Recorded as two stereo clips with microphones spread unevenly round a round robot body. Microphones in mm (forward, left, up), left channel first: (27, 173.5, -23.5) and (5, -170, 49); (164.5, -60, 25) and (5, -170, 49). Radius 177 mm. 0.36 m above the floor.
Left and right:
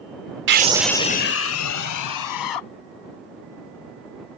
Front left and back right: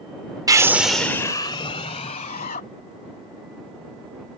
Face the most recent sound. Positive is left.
turn(degrees=95)